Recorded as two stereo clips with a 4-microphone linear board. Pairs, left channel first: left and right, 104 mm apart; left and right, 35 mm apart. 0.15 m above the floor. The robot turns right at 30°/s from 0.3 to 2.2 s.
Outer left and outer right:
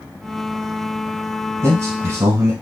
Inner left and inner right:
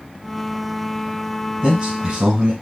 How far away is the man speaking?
About 1.2 m.